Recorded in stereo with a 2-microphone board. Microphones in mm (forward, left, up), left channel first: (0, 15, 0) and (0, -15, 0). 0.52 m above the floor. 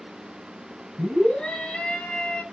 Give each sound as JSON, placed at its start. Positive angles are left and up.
{"t": 1.0, "sound": "a scream", "side_deg": 40, "distance_m": 4.5}